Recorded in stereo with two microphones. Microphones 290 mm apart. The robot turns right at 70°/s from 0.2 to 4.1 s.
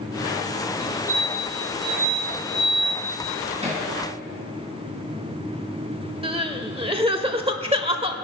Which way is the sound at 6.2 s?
20° right (ahead or behind).